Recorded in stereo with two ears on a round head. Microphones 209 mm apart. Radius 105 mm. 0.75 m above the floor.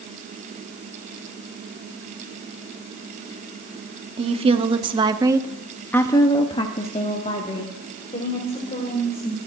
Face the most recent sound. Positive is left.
turn(degrees=30)  # may be behind; listen again after turning